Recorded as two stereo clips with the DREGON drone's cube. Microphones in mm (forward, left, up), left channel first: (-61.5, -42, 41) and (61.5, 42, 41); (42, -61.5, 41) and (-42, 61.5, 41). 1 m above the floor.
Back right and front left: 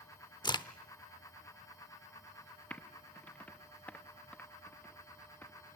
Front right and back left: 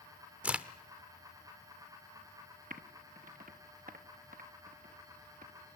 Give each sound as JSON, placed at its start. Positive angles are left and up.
{"t": 0.4, "sound": "a crack", "azimuth_deg": -165, "distance_m": 0.7}
{"t": 2.7, "sound": "typing on a keyboard", "azimuth_deg": 135, "distance_m": 0.9}